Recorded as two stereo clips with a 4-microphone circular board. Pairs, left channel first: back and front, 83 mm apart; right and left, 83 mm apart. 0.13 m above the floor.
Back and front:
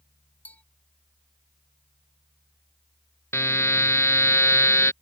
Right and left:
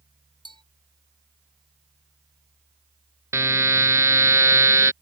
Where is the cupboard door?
I don't hear a cupboard door.